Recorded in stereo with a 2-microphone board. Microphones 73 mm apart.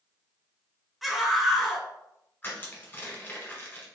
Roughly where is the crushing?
Left.